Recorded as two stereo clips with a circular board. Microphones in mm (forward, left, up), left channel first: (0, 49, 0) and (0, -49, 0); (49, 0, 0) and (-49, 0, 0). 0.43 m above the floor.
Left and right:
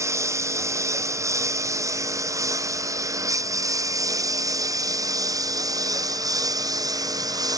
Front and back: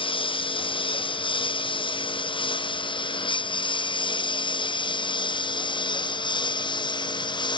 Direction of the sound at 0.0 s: 30° right.